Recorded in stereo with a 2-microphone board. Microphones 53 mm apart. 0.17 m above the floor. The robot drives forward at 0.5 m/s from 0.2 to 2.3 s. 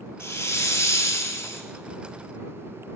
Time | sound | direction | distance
0.2 | a hiss | 55° left (ahead or behind) | 1.0 m